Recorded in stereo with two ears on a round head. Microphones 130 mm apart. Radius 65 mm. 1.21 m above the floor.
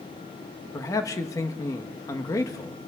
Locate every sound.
0.7 s a man speaking: 25° left (ahead or behind), 1.1 m